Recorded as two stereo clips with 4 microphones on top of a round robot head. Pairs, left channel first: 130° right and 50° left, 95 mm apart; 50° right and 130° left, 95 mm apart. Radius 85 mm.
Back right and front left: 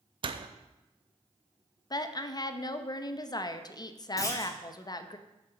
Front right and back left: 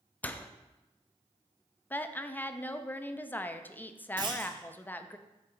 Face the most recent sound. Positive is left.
turn(degrees=170)